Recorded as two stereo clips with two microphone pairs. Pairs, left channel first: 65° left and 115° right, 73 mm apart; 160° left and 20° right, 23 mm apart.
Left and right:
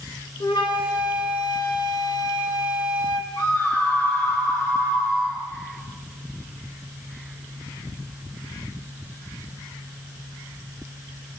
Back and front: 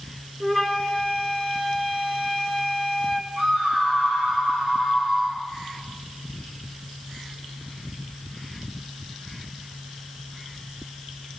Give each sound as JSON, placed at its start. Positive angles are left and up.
{"t": 0.4, "sound": "a flute", "azimuth_deg": 60, "distance_m": 1.8}
{"t": 3.4, "sound": "a scream", "azimuth_deg": 20, "distance_m": 7.0}